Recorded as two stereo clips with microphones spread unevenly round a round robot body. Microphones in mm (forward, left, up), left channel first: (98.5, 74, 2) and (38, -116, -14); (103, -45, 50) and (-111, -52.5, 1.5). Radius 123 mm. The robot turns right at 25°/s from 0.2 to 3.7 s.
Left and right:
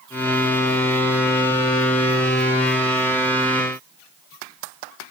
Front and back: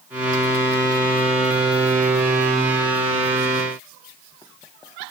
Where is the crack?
I don't hear a crack.